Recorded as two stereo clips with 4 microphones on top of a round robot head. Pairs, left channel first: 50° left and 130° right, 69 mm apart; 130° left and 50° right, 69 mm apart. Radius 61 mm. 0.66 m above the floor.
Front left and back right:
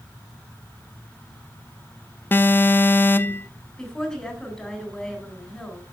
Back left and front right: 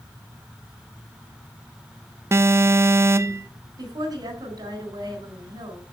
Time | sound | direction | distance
2.3 | an alarm | 5° right | 0.5 m
3.8 | a woman speaking | 30° right | 4 m